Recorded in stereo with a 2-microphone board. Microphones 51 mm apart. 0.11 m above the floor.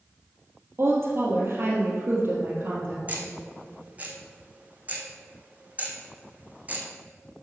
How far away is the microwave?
I don't hear a microwave.